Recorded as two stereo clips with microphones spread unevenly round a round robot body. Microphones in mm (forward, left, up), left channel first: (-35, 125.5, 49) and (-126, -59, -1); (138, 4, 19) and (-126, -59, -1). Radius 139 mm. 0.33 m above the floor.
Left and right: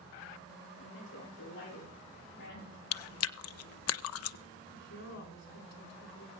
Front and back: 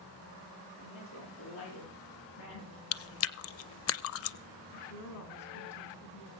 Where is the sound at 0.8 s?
35° left, 9.5 m; by 2.8 s 30° left, 11 m.